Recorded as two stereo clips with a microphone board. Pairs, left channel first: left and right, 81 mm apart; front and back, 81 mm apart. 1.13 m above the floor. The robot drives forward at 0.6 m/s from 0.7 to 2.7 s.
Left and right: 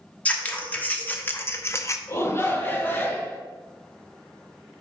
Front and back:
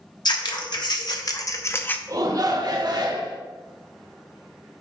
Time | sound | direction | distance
0.2 | scissors | 20° left | 1.1 m
2.1 | a shout | 140° left | 1.0 m